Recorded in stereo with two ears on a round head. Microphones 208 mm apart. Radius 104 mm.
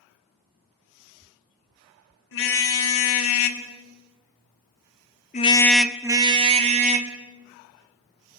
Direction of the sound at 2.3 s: 60° left (ahead or behind).